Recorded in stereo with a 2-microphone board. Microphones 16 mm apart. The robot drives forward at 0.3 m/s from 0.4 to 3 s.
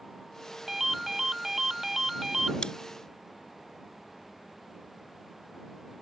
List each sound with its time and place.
0.7 s a ringtone: 25° right (ahead or behind)
2.6 s chewing: 55° left (ahead or behind); by 2.7 s 60° left (ahead or behind)